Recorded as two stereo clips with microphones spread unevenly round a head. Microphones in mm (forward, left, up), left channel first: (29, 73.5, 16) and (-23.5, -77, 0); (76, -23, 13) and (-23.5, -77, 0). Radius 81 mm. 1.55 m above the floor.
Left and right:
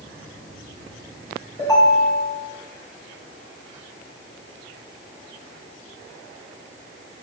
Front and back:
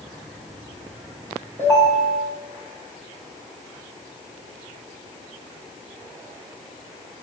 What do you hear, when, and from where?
1.6 s a ringtone: 135° left, 4 m